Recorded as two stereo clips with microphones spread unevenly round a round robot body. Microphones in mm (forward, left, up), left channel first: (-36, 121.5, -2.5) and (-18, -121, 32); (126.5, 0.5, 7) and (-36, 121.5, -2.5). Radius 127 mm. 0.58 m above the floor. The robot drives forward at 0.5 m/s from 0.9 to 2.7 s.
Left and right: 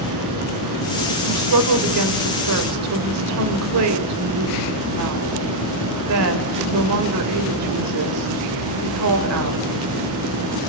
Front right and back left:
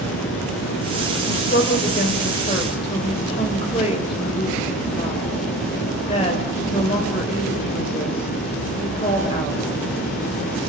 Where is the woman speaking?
90° right, 2.5 m; by 9.6 s 105° right, 3 m.